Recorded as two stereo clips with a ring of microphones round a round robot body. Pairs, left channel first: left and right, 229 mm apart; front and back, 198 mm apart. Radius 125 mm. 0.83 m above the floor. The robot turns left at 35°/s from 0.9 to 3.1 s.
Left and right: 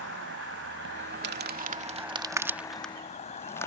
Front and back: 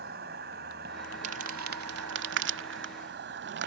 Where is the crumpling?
125° right; by 3.7 s 170° left.